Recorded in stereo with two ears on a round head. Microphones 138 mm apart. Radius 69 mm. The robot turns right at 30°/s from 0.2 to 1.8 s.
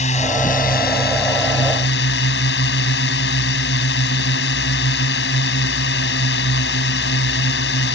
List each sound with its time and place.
0.0 s a drone: 45° left; by 8.0 s 95° left